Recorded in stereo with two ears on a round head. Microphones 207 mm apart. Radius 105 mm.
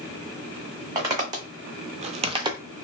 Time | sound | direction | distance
0.9 | footsteps | 15° right (ahead or behind) | 1.3 m